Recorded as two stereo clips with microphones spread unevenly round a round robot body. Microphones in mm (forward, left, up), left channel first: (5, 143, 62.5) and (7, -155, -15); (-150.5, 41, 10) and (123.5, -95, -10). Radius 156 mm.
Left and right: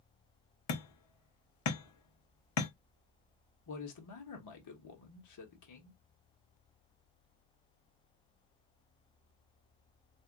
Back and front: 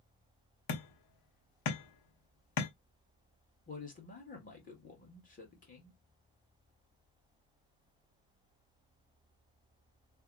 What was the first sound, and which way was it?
Hammering, 130° left.